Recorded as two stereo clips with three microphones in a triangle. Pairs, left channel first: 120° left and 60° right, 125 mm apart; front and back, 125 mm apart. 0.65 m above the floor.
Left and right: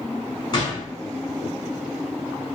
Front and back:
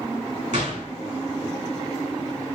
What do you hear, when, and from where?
0.5 s a gunshot: 170° left, 1.7 m